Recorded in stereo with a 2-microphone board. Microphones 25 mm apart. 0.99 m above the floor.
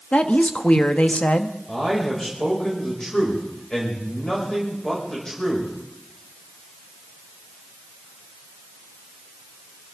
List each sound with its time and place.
0.1 s a woman speaking: 60° left (ahead or behind), 1.1 m
1.7 s a man speaking: 20° left (ahead or behind), 5.5 m